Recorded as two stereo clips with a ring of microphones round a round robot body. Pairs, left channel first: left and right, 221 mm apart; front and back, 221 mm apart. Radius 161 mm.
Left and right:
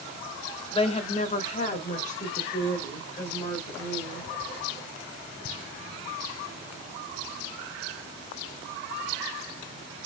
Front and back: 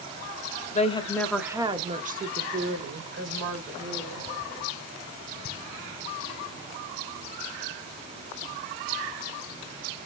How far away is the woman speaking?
About 0.9 m.